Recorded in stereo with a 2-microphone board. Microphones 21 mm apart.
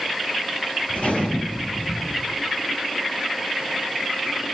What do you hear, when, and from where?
0.9 s a gunshot: 70° left (ahead or behind), 9 m